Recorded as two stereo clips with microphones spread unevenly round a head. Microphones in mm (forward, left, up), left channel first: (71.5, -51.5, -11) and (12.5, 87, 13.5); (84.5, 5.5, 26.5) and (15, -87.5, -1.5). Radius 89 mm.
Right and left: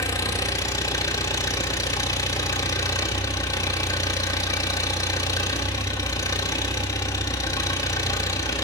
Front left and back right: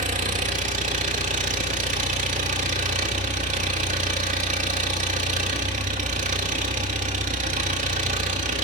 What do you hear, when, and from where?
0.0 s an engine running: 140° right, 1.4 m